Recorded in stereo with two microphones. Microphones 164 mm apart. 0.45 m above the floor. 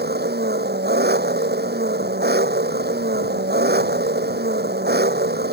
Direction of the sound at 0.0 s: 80° right.